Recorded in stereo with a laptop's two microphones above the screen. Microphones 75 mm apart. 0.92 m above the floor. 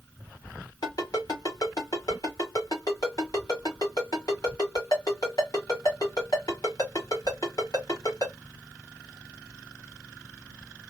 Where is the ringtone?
60° left (ahead or behind), 1.7 m.